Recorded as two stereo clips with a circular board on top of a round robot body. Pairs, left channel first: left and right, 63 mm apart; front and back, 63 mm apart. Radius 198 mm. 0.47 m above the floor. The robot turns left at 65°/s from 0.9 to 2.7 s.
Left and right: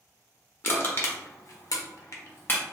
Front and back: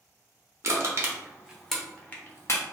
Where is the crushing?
140° left, 0.8 m; by 2.6 s 30° left, 0.8 m.